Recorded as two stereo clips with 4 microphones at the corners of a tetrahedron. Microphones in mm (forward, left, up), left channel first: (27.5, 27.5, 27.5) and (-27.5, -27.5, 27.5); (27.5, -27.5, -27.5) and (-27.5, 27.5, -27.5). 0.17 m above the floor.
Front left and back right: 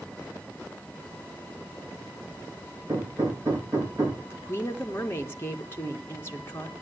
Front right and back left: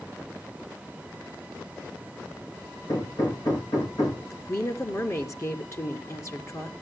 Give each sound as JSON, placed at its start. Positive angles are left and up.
{"t": 2.9, "sound": "hammering", "azimuth_deg": -80, "distance_m": 5.5}
{"t": 4.3, "sound": "a woman speaking", "azimuth_deg": -5, "distance_m": 2.5}